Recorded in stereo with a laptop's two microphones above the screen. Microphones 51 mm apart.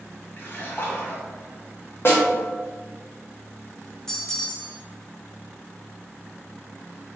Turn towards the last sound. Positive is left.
turn(degrees=10)  # may be behind; listen again after turning